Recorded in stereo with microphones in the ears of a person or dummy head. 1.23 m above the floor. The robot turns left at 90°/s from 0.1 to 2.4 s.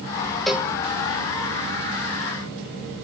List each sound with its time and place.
0.5 s a cowbell: centre (ahead or behind), 1.0 m; by 0.7 s 20° right (ahead or behind), 1.0 m